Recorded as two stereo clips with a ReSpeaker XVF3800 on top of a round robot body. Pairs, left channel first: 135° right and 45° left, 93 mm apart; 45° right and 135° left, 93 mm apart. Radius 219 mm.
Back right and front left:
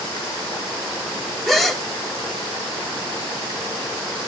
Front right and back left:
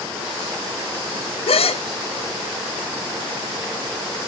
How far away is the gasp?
About 0.9 m.